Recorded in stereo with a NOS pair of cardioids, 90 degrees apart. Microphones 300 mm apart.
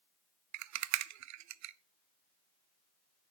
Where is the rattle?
65° right, 0.7 m.